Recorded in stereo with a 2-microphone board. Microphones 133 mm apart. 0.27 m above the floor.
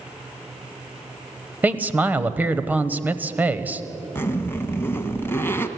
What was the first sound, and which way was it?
A man speaking, 15° right (ahead or behind).